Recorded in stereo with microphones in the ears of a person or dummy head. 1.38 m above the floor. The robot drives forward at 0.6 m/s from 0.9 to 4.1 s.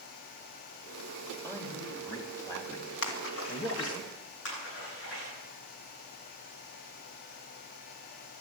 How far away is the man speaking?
About 3 m.